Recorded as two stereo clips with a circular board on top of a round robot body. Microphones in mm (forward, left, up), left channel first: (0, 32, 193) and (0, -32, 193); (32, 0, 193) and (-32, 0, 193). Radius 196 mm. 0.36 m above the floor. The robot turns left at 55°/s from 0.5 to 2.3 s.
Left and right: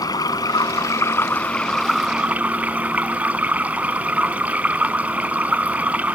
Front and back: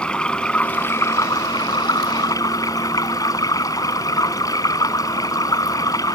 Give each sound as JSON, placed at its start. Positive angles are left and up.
{"t": 0.0, "sound": "running water", "azimuth_deg": 75}